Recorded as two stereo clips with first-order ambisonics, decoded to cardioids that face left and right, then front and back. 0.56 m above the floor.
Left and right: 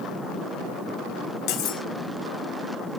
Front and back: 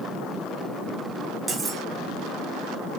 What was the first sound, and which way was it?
Cutlery clinking, 100° left.